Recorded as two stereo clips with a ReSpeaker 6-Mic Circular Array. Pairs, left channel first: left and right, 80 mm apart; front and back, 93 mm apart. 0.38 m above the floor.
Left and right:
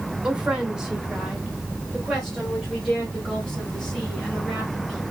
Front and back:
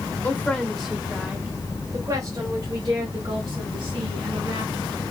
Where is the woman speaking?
30° right, 1.3 m; by 5.0 s 175° left, 3 m.